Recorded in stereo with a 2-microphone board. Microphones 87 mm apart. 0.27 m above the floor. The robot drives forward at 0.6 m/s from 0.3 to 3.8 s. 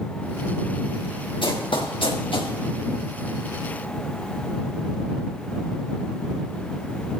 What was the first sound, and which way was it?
Running footsteps, 70° left (ahead or behind).